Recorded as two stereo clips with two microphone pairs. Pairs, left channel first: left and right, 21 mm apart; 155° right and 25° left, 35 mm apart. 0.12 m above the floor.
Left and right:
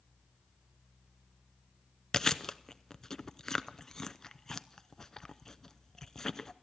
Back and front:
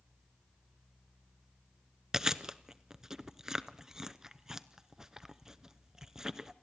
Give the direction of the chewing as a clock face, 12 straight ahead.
9 o'clock.